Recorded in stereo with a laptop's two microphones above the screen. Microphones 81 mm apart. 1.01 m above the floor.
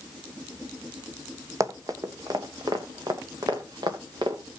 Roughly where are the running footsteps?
Right.